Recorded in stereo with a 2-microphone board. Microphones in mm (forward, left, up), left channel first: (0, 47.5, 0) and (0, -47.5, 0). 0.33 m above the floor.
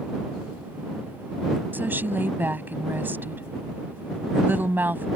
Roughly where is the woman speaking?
Centre.